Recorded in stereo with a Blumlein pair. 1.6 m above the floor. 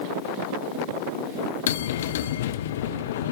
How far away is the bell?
About 0.6 m.